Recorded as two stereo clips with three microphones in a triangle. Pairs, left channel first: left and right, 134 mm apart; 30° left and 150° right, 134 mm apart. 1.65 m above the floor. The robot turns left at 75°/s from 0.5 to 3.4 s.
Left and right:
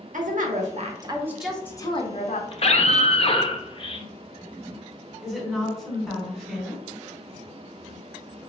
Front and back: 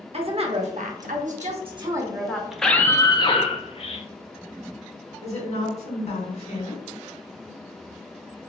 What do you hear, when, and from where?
0.1 s a woman speaking: 105° right, 0.7 m; by 2.4 s 110° left, 0.7 m
2.5 s a scream: 125° left, 0.5 m; by 4.1 s 55° left, 0.5 m
5.2 s a woman speaking: straight ahead, 1.3 m